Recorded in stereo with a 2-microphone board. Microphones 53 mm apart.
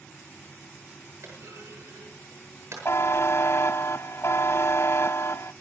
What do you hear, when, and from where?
1.2 s a clunk: 60° right (ahead or behind), 8 m
2.9 s a buzzer: 55° left (ahead or behind), 0.5 m